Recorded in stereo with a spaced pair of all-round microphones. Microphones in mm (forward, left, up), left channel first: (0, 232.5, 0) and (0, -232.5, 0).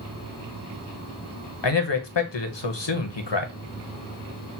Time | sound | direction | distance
1.6 | a man speaking | 65° left (ahead or behind) | 0.8 m